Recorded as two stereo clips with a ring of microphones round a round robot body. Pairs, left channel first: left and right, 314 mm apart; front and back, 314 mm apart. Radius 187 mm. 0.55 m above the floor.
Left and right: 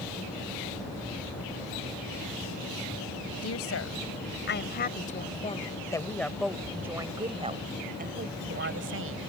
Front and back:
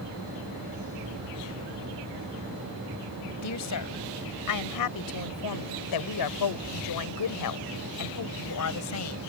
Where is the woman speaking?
40° left; by 9.2 s 40° right.